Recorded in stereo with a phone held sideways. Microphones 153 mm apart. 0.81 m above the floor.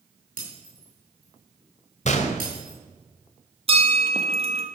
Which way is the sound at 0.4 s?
70° right (ahead or behind).